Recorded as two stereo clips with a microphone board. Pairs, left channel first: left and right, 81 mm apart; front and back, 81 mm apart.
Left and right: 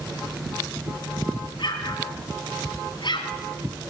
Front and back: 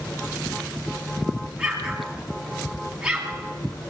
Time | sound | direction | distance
1.6 | an explosion | 100° left | 2.5 m